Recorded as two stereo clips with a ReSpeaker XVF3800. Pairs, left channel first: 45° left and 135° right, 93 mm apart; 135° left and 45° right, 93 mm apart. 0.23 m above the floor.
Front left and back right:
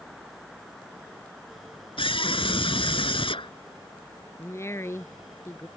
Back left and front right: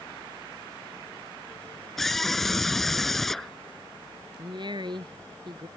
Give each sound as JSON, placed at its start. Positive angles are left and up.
{"t": 2.0, "sound": "a scream", "azimuth_deg": 50}
{"t": 4.4, "sound": "a woman speaking", "azimuth_deg": -15}